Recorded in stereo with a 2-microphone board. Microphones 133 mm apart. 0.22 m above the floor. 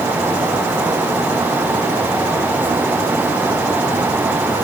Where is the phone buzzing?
No phone buzzing in this recording.